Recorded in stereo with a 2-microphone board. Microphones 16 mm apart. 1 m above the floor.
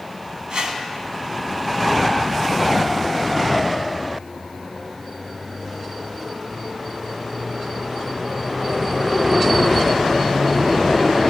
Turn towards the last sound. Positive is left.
turn(degrees=-60)  # may be behind; listen again after turning